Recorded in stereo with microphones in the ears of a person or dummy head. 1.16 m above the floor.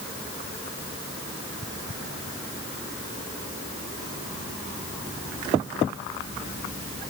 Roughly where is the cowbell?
No cowbell in this recording.